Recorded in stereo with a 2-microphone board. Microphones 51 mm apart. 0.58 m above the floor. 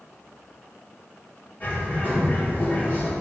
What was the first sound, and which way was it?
A bird, 40° left (ahead or behind).